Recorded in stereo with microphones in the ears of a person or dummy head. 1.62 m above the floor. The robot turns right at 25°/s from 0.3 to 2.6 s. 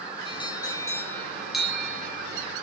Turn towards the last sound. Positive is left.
turn(degrees=-150)